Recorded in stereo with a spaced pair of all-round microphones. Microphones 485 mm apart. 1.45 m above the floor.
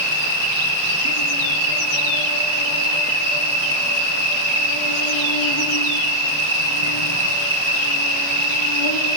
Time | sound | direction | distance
0.0 | an insect | 70° left (ahead or behind) | 3.5 m